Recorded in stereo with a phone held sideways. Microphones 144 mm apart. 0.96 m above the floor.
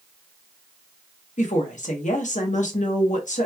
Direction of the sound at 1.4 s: 60° left (ahead or behind).